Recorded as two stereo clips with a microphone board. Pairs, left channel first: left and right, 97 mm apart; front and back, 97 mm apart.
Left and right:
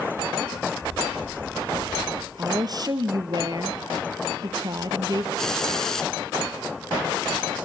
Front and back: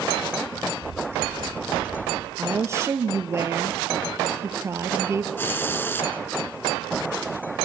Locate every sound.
0.5 s footsteps: 110° right, 8.5 m; by 2.3 s 115° right, 10.5 m
2.4 s a woman speaking: 125° right, 2 m
5.4 s a hiss: 15° left, 1.0 m